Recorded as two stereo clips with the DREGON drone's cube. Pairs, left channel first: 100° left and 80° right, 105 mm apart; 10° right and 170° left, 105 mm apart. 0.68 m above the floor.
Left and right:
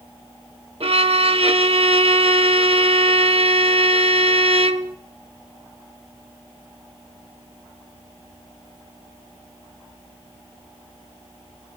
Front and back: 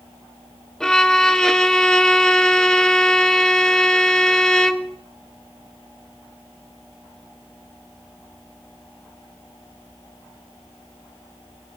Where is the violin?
95° right, 0.5 m.